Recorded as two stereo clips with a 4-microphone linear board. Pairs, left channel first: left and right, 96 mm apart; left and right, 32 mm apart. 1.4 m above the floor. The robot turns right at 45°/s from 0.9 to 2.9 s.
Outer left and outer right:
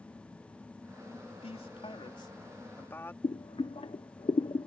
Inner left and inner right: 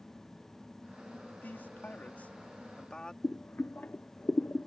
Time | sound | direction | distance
1.4 | a man speaking | 90° left | ?
3.2 | boiling | 70° left (ahead or behind) | ?